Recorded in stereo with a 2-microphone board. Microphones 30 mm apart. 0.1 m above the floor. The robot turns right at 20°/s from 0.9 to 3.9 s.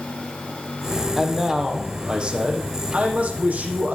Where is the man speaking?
165° right, 4.5 m; by 4.0 s 110° right, 4.5 m.